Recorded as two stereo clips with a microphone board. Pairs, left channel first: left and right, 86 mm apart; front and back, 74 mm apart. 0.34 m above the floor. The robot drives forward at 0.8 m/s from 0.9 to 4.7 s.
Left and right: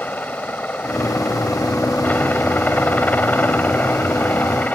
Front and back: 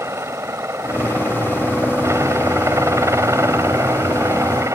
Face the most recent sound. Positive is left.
turn(degrees=155)